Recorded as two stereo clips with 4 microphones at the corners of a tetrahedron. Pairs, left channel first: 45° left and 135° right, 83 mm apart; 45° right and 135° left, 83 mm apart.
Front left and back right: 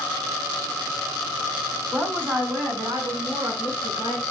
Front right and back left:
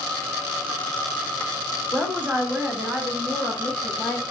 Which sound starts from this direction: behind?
A woman speaking, at 1.9 s.